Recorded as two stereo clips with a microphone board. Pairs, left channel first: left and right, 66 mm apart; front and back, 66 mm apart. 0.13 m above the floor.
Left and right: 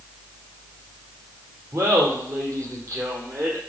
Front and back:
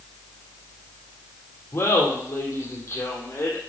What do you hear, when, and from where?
1.7 s laughter: 50° right, 4 m